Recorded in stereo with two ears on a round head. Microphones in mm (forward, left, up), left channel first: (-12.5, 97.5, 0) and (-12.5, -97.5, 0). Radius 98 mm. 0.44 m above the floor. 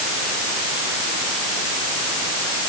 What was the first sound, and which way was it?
Only background noise.